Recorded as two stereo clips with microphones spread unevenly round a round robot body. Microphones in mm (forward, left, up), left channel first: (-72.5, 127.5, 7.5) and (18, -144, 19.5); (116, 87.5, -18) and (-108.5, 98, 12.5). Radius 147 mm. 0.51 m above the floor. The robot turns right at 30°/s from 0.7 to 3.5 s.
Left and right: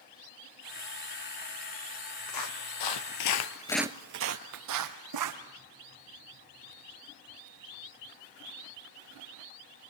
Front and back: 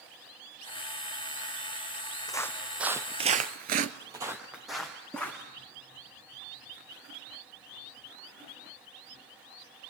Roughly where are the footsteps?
Left.